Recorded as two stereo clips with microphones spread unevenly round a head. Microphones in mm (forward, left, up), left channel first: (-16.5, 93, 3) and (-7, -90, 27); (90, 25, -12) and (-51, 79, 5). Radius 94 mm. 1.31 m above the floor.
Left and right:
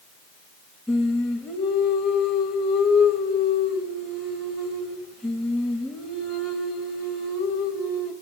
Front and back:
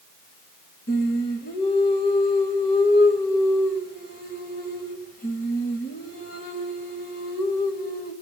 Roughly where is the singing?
Ahead.